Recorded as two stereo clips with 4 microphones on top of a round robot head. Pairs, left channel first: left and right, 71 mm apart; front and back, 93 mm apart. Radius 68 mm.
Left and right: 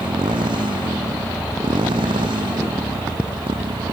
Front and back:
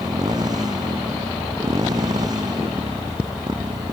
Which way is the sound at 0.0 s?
120° right.